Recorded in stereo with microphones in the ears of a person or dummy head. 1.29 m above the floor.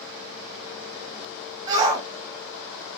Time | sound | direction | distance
1.7 | a shout | 20° right (ahead or behind) | 1.4 m